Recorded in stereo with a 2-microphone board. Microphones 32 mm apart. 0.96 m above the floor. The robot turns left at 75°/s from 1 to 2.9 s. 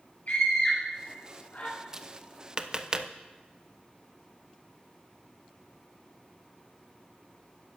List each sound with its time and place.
0.3 s a scream: 55° left (ahead or behind), 5.5 m; by 1.7 s 70° left (ahead or behind), 5.5 m
1.9 s tapping: 20° right (ahead or behind), 0.6 m; by 3.1 s 25° right (ahead or behind), 0.6 m